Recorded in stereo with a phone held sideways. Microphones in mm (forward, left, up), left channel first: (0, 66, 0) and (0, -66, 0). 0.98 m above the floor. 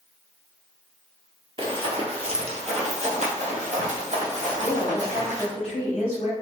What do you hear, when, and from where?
1.6 s running footsteps: 40° right (ahead or behind), 1.2 m; by 5.5 s 60° right (ahead or behind), 2.5 m
4.5 s a woman speaking: 50° left (ahead or behind), 1.7 m